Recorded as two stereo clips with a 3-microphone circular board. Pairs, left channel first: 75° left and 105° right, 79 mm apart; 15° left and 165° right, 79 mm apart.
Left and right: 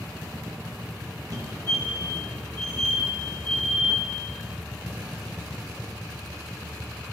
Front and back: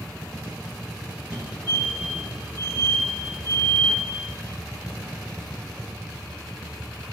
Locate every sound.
1.3 s a fire alarm: 90° right, 3 m